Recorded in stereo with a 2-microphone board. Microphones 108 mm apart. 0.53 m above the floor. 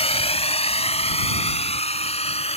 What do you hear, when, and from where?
0.0 s a drone: 65° left (ahead or behind); by 2.6 s 70° left (ahead or behind)